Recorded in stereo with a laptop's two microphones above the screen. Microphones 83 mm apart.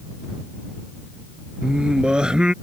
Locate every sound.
1.6 s singing: 10° right (ahead or behind)